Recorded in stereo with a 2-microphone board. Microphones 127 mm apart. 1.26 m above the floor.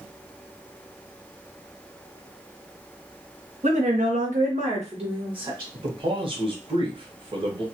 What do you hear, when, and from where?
3.6 s a woman speaking: 70° right (ahead or behind), 1.0 m; by 5.6 s 35° right (ahead or behind), 1.4 m
5.7 s a man speaking: 40° right (ahead or behind), 1.0 m